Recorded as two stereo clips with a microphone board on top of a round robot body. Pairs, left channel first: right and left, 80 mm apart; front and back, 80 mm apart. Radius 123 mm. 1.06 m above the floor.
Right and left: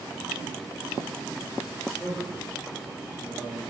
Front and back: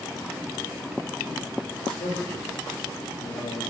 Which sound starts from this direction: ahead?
A man speaking, at 1.8 s.